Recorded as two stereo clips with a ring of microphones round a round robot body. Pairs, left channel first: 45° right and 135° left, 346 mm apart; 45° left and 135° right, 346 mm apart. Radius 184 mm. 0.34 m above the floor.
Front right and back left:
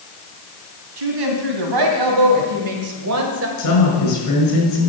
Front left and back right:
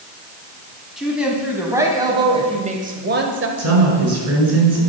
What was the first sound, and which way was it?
A woman speaking, 135° left.